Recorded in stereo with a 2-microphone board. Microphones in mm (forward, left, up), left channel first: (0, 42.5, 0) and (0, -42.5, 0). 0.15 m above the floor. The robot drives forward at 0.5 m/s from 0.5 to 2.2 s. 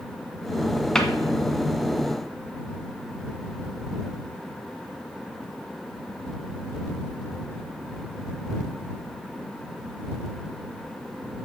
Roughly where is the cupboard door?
Centre.